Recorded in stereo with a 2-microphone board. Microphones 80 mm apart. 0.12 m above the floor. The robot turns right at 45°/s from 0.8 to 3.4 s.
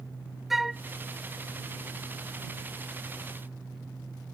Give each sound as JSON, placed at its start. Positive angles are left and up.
{"t": 0.5, "sound": "a flute", "side_deg": -5}